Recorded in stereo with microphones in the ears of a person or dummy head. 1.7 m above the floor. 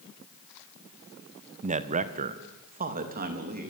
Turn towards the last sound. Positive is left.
turn(degrees=-45)  # may be behind; listen again after turning